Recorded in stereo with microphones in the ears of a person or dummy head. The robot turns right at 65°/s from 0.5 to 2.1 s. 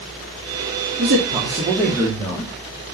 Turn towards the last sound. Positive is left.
turn(degrees=20)